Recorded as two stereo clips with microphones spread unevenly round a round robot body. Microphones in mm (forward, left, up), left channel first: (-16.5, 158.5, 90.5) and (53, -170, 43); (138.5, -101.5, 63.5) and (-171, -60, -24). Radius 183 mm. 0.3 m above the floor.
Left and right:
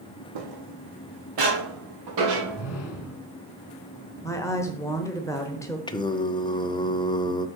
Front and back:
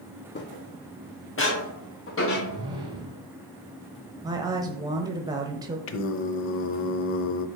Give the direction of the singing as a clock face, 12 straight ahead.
11 o'clock.